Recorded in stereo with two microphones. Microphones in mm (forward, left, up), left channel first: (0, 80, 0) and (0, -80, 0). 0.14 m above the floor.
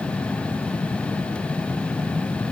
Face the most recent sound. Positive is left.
No sound to turn to.